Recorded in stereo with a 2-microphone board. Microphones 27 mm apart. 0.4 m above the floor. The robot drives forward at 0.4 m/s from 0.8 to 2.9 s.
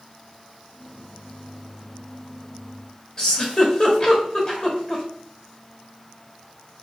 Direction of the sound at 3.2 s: 30° left (ahead or behind).